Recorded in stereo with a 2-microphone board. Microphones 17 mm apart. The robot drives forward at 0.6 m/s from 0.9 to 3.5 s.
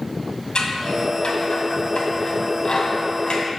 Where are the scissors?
65° left (ahead or behind), 2 m; by 3.4 s 55° left (ahead or behind), 2.5 m.